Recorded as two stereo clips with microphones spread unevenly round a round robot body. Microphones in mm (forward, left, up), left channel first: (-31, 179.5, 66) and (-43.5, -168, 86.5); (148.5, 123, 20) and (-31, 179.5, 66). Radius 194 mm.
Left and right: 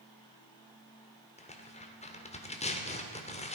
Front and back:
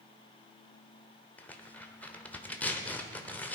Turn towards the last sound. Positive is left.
turn(degrees=35)